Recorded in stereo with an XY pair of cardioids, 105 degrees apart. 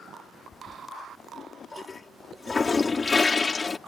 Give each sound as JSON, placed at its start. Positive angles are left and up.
{"t": 0.5, "sound": "a toilet flushing", "azimuth_deg": 30}